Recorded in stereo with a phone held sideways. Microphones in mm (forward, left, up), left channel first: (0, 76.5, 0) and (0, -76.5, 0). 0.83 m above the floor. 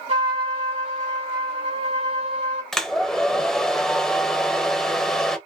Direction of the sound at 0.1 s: 40° right (ahead or behind).